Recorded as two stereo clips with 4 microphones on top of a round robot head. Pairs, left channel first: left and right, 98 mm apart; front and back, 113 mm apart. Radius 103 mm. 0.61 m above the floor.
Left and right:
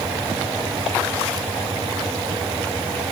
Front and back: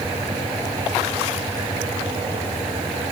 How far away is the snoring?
I don't hear snoring.